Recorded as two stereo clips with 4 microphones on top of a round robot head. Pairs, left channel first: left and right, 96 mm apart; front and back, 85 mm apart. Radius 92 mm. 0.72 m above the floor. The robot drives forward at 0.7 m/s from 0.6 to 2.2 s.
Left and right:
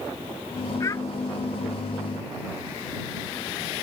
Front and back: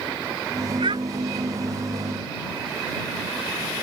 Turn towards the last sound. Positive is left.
turn(degrees=155)